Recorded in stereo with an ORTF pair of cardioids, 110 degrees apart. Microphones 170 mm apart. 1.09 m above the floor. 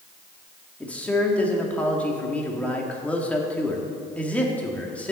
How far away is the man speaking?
About 1.9 m.